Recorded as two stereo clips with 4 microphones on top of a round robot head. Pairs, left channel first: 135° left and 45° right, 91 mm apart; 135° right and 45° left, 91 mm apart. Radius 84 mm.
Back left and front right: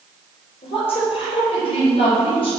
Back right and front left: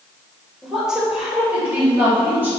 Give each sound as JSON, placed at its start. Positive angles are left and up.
{"t": 0.6, "sound": "a woman speaking", "azimuth_deg": 135, "distance_m": 3.0}